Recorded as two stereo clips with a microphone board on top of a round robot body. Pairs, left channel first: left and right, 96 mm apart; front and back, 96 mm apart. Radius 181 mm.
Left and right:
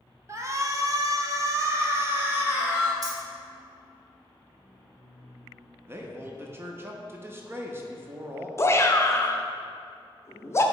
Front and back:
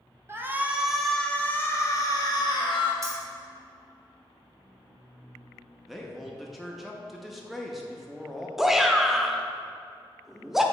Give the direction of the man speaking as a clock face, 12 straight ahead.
3 o'clock.